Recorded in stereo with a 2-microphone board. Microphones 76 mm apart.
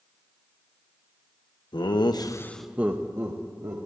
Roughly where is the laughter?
Left.